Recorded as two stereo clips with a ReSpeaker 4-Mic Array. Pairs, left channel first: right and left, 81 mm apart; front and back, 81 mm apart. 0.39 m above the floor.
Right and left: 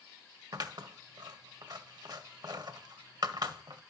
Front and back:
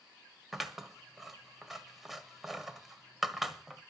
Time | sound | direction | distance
0.5 | scissors | 95° left | 1.4 m